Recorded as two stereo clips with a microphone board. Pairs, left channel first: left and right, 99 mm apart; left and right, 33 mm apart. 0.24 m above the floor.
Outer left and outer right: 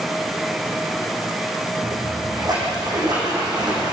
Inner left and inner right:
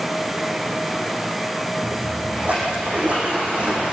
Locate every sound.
1.8 s a splash: 45° right (ahead or behind), 8.5 m